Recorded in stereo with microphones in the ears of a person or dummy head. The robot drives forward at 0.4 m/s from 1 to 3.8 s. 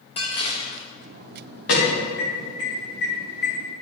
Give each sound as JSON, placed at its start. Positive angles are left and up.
{"t": 0.2, "sound": "dishes clattering", "side_deg": 35, "distance_m": 1.6}
{"t": 1.7, "sound": "an alarm", "side_deg": 70, "distance_m": 3.5}